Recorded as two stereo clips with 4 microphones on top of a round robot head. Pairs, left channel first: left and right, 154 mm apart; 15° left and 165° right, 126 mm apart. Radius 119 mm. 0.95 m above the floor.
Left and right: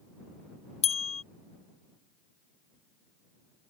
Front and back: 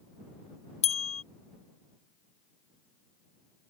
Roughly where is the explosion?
No explosion in this recording.